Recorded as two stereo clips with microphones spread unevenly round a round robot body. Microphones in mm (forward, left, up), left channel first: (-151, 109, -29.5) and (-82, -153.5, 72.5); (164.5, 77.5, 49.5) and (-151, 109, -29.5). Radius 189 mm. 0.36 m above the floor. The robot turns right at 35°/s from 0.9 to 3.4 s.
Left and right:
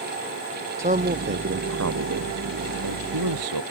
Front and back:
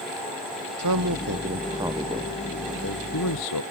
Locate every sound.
0.8 s a man speaking: 140° right; by 3.6 s 50° right